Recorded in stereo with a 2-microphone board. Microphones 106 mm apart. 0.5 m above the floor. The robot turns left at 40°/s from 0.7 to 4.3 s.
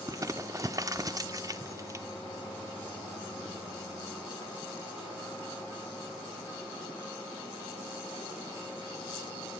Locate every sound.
0.1 s crumpling: 30° right (ahead or behind), 0.5 m